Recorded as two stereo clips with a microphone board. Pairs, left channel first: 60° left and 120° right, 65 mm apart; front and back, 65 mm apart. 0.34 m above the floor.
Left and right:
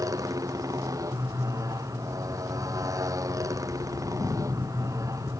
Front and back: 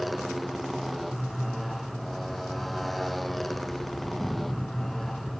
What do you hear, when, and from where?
0.0 s a motorcycle: 90° right; by 5.4 s 85° right